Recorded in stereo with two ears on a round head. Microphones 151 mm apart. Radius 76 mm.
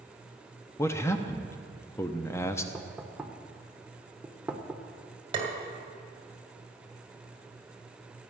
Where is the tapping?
35° right (ahead or behind), 2 m.